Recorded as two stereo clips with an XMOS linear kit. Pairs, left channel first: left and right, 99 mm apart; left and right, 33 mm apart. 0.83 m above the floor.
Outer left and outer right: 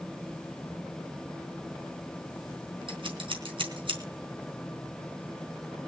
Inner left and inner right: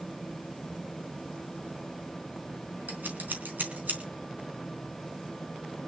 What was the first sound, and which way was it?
Scissors, 70° right (ahead or behind).